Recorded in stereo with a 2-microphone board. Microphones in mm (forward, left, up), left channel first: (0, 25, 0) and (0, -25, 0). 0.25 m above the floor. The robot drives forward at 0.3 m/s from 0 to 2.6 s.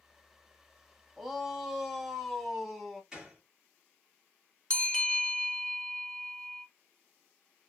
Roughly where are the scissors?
No scissors in this recording.